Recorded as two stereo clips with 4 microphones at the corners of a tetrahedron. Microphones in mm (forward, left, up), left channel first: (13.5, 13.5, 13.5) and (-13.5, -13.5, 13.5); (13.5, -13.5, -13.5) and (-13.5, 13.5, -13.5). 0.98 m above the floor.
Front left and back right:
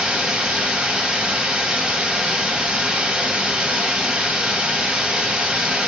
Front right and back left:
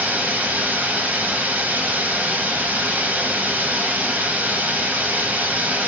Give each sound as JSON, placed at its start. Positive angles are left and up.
{"t": 0.0, "sound": "running water", "azimuth_deg": 165, "distance_m": 0.9}